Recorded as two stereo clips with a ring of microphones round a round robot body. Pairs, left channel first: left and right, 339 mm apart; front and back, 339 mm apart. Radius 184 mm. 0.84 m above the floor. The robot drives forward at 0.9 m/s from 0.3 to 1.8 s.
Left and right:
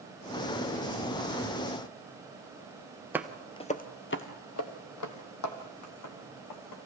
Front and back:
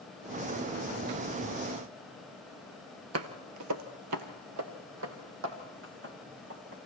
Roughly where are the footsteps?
Behind.